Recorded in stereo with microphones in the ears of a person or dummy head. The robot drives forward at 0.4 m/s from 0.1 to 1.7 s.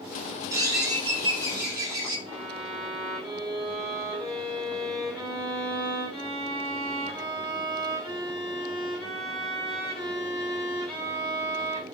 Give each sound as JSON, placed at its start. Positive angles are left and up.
{"t": 0.5, "sound": "a bird", "side_deg": -20, "distance_m": 0.8}
{"t": 2.3, "sound": "a violin", "side_deg": 0, "distance_m": 0.9}